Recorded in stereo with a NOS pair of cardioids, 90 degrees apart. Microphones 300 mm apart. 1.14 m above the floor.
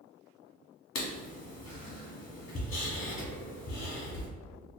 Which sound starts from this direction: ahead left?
Writing, at 0.9 s.